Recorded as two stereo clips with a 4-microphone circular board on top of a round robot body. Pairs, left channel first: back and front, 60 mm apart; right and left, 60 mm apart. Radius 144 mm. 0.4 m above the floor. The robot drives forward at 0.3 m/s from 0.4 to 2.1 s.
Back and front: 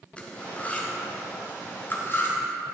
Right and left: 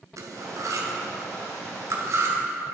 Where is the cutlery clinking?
110° left, 1.4 m; by 2.4 s 130° left, 1.6 m.